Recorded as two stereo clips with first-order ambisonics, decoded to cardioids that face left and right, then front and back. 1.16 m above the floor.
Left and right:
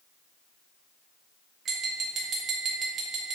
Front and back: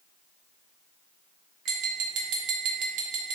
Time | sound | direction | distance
1.6 | tapping | 150° right | 0.6 m